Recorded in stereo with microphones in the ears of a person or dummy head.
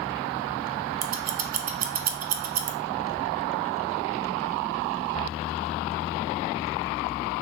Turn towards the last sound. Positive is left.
turn(degrees=-40)  # may be behind; listen again after turning